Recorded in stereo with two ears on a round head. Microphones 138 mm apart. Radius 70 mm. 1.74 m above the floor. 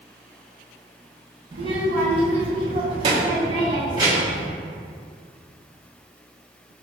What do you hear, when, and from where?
1.5 s a child speaking: 35° right (ahead or behind), 1.0 m; by 4.4 s 25° right (ahead or behind), 1.4 m